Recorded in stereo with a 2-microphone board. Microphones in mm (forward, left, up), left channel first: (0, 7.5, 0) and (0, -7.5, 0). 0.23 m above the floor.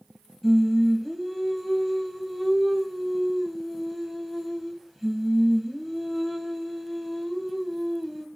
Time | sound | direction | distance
0.4 | singing | 10° right (ahead or behind) | 0.9 m